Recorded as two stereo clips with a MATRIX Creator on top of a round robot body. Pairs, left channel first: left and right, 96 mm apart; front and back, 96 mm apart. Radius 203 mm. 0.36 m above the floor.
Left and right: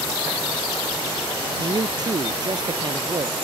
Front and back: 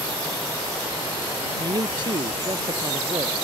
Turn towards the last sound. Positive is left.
turn(degrees=-135)